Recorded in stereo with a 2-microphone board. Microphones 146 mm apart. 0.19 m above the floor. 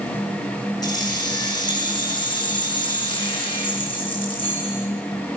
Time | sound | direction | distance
0.8 | keys jangling | 30° left (ahead or behind) | 5 m